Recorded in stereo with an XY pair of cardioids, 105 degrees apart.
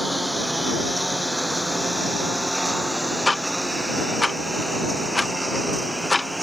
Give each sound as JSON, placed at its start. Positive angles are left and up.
{"t": 0.0, "sound": "a lawn mower", "azimuth_deg": -5}
{"t": 3.3, "sound": "ticking", "azimuth_deg": 15}